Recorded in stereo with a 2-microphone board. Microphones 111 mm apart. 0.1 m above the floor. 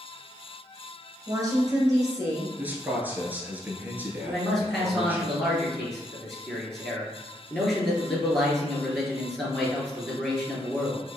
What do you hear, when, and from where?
1.3 s a woman speaking: 30° right (ahead or behind), 1.9 m
2.6 s a man speaking: 15° right (ahead or behind), 1.3 m
4.2 s a man speaking: 5° left (ahead or behind), 1.9 m